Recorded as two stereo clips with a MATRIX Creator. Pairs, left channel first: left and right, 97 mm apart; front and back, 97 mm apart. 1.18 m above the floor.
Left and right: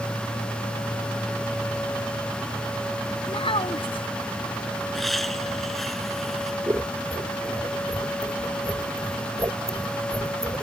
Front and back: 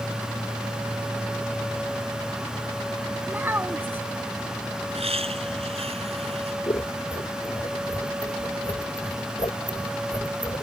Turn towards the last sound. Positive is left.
turn(degrees=-40)